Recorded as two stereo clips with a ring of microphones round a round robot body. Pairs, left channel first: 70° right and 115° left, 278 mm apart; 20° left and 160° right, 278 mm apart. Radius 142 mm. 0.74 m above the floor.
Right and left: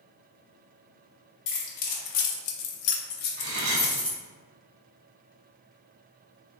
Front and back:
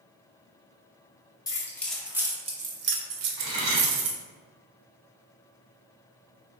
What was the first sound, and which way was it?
Keys jangling, 55° right.